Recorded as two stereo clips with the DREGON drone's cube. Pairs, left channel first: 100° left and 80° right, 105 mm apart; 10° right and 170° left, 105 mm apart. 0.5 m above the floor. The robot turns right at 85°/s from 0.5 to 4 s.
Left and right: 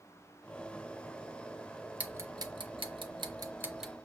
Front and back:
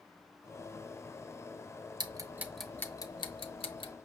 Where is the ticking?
150° right, 0.5 m; by 3.9 s 10° left, 0.5 m.